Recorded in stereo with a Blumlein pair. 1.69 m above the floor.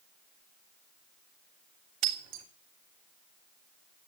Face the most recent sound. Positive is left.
turn(degrees=-45)